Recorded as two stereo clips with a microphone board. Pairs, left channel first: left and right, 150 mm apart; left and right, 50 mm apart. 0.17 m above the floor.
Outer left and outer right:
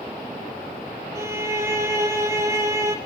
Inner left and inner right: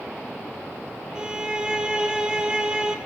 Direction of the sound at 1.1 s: 15° right (ahead or behind).